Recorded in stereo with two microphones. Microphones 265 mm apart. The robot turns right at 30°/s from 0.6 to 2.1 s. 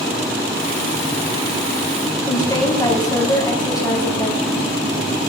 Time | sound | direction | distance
2.3 | a woman speaking | 15° left (ahead or behind) | 3 m